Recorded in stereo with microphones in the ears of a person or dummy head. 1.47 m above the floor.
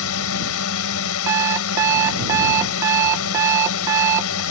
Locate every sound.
0.0 s a drone: 70° left (ahead or behind)
1.3 s an alarm clock: 15° right (ahead or behind)